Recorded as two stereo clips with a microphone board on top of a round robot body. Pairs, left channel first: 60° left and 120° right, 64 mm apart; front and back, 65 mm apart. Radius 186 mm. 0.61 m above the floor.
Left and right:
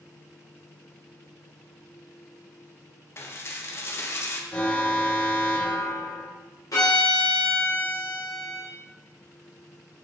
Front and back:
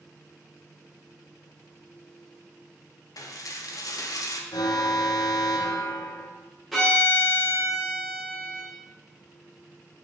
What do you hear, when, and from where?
3.2 s dishes clattering: 15° left, 0.9 m
4.5 s an alarm: 10° right, 1.1 m
6.7 s a violin: 90° left, 1.6 m